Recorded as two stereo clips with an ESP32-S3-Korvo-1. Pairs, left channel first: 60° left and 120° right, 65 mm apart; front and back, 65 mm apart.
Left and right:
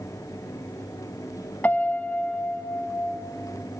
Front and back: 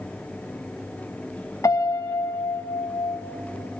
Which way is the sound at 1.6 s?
Straight ahead.